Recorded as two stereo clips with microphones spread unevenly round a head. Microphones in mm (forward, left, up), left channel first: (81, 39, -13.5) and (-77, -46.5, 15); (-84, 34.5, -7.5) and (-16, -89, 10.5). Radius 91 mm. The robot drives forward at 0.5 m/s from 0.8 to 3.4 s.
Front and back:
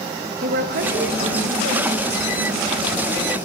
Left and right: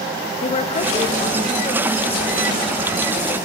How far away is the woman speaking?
About 1.4 m.